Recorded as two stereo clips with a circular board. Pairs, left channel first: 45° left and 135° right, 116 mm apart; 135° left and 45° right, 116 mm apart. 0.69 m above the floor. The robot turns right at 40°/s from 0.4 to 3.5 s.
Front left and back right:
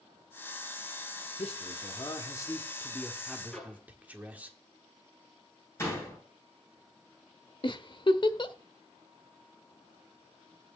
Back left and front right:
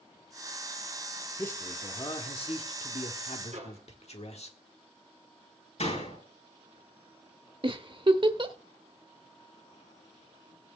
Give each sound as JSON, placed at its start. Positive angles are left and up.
{"t": 1.4, "sound": "a man speaking", "azimuth_deg": 65, "distance_m": 1.4}
{"t": 3.5, "sound": "a microwave", "azimuth_deg": -40, "distance_m": 6.5}
{"t": 5.8, "sound": "a door slam", "azimuth_deg": 115, "distance_m": 9.0}
{"t": 7.6, "sound": "a giggle", "azimuth_deg": 0, "distance_m": 0.9}